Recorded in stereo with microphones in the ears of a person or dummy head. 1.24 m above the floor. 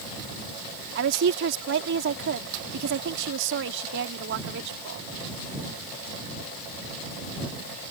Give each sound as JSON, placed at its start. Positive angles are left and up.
{"t": 0.9, "sound": "a woman speaking", "side_deg": -70}